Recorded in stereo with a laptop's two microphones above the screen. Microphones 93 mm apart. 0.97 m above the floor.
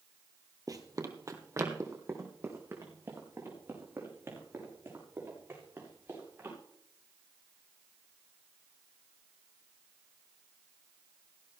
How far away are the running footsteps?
About 1.5 m.